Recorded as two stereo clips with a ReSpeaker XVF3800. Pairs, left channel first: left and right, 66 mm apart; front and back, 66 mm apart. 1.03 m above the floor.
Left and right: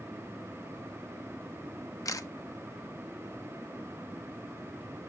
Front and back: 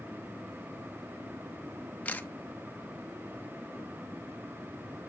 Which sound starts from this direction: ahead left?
A camera shutter, at 2.0 s.